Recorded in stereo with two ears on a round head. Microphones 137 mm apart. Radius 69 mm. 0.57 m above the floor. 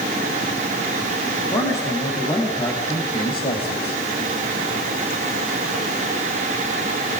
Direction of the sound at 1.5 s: 20° left (ahead or behind).